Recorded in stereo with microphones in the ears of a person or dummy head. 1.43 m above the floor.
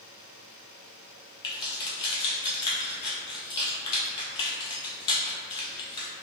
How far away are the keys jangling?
About 0.7 m.